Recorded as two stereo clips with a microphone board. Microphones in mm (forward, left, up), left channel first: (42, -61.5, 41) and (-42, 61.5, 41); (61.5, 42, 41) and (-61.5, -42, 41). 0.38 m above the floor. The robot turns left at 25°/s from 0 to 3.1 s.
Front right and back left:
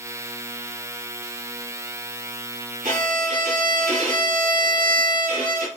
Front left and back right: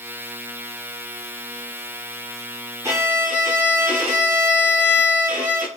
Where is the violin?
145° left, 1.3 m; by 5.7 s 140° left, 1.3 m.